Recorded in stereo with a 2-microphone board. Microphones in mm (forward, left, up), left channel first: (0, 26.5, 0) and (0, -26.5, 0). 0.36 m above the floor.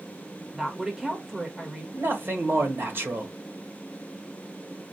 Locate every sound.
0.5 s a woman speaking: 5° right (ahead or behind), 1.2 m
1.9 s a man speaking: 45° right (ahead or behind), 1.4 m